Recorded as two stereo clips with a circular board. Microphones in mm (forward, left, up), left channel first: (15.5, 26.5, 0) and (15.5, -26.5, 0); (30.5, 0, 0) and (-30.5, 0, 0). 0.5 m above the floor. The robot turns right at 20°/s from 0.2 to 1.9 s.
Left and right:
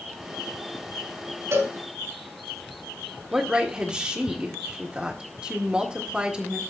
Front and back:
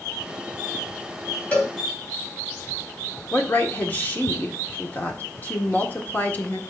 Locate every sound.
1.5 s a cowbell: 70° right, 2.5 m; by 1.7 s 65° right, 2.5 m
3.3 s a woman speaking: 30° right, 1.5 m